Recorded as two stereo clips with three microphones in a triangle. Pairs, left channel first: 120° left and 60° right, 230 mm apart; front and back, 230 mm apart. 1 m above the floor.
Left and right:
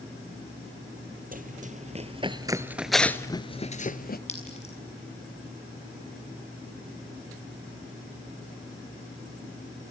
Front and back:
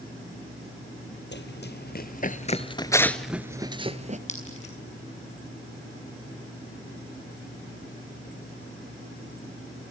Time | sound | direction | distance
1.3 | running footsteps | 20° right | 1.7 m
4.3 | a clink | 60° left | 6.5 m